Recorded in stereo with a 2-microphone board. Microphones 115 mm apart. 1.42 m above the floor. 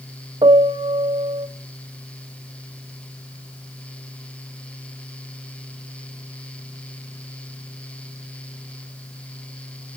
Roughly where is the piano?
Right.